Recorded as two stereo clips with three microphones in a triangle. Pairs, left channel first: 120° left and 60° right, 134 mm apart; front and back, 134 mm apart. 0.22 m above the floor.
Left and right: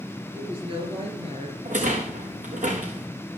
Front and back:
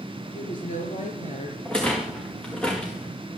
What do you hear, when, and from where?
0.3 s a woman speaking: 10° right, 4 m; by 1.6 s 25° right, 3.5 m
1.6 s a rattle: 85° right, 3.5 m